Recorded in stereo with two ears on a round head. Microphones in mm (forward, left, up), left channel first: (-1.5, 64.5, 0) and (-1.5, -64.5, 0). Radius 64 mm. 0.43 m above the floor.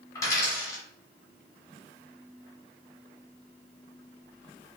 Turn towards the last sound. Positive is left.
turn(degrees=25)  # may be behind; listen again after turning